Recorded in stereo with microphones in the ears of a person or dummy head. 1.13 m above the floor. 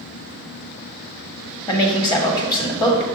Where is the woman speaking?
20° left (ahead or behind), 1.4 m.